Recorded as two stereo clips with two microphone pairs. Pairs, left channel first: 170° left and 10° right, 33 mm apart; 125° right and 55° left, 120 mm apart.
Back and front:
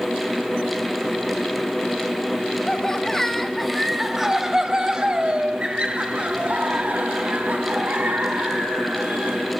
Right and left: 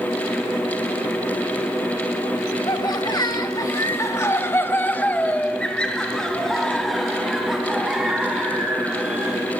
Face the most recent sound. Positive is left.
turn(degrees=-25)